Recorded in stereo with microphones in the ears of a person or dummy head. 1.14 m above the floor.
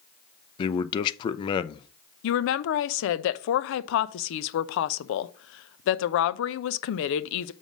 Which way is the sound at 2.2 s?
65° left (ahead or behind).